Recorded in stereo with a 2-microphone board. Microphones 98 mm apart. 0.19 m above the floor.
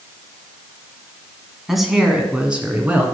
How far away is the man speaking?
About 1.8 m.